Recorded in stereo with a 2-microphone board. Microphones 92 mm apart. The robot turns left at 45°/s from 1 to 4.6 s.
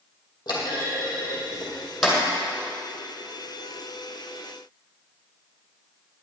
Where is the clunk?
50° left (ahead or behind), 2.5 m; by 2.2 s 5° right (ahead or behind), 2.5 m.